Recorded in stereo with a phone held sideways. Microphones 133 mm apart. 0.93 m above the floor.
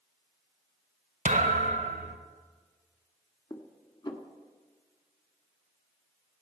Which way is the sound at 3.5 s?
30° left (ahead or behind).